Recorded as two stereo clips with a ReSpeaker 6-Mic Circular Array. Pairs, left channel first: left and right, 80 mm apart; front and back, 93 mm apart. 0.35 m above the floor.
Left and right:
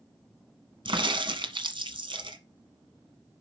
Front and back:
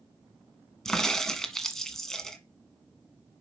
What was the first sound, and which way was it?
A crack, 85° right.